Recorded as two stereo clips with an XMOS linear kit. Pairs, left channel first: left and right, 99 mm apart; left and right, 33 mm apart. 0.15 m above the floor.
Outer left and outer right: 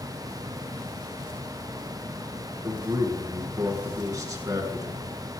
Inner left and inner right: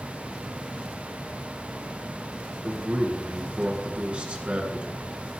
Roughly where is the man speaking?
Right.